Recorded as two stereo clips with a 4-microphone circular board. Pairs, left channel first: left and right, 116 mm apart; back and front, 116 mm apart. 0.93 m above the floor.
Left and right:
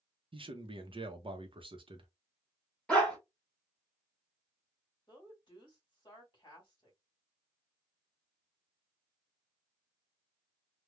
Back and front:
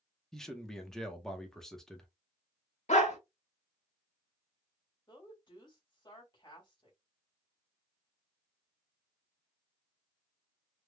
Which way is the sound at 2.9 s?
170° left.